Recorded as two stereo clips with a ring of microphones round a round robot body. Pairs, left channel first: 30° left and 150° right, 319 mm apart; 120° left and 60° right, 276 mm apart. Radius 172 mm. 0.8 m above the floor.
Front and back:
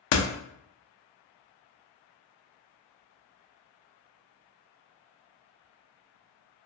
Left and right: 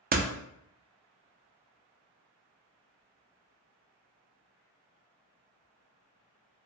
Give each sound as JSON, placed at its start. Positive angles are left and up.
{"t": 0.1, "sound": "a door slam", "azimuth_deg": 0, "distance_m": 0.5}